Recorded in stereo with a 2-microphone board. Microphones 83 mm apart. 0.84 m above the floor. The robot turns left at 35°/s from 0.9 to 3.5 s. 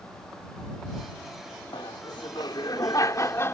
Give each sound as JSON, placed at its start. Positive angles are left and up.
{"t": 1.7, "sound": "laughter", "azimuth_deg": 95}